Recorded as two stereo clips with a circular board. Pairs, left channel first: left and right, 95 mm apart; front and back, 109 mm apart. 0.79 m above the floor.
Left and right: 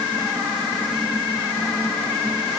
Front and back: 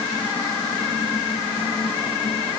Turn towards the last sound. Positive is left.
No sound to turn to.